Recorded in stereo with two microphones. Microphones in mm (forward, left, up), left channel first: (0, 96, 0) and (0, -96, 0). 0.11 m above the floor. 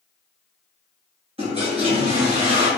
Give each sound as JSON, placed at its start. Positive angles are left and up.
{"t": 1.4, "sound": "a toilet flushing", "side_deg": -30, "distance_m": 2.0}